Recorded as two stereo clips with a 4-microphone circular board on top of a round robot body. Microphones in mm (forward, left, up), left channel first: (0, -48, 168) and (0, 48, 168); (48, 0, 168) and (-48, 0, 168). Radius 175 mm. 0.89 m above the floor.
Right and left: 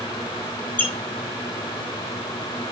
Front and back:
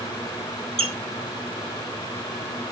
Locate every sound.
0.8 s a squeak: 165° right, 2 m